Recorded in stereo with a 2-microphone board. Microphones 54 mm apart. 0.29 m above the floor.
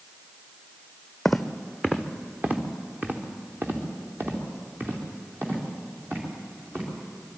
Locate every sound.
1.2 s footsteps: 5° left (ahead or behind), 0.9 m; by 7.3 s 40° right (ahead or behind), 7 m